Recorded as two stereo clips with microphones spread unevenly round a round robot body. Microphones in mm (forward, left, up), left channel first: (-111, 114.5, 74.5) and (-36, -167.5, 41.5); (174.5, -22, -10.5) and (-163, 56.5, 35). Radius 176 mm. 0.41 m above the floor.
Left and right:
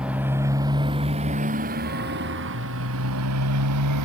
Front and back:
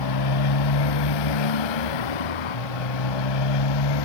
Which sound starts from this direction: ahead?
A motorcycle, at 0.0 s.